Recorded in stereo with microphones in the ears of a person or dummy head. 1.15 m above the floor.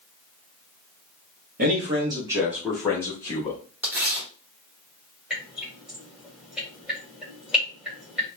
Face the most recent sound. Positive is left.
turn(degrees=5)  # may be behind; listen again after turning